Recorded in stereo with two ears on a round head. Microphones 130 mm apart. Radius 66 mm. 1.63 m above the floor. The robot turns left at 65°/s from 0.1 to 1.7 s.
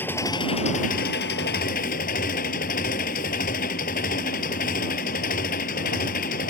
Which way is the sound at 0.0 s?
165° left.